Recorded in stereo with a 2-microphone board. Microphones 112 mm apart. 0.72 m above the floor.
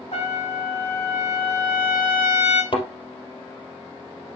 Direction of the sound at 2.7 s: 50° left (ahead or behind).